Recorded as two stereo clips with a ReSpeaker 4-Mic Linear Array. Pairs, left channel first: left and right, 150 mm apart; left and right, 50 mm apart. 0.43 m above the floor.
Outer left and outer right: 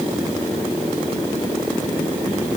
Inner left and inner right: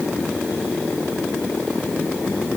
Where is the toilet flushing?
No toilet flushing in this recording.